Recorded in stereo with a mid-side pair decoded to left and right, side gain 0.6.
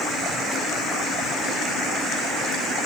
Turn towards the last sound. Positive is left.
No sound to turn to.